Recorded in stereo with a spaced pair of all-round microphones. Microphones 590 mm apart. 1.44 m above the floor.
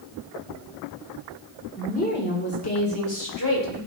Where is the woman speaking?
10° left (ahead or behind), 1.6 m; by 3.8 s 35° left (ahead or behind), 3.5 m.